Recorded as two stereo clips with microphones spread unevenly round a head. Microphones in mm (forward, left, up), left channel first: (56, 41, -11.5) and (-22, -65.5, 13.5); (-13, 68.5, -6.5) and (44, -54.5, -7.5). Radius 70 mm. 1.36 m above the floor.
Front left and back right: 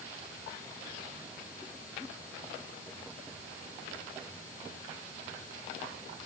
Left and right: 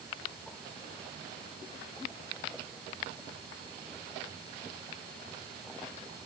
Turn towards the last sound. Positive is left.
No sound to turn to.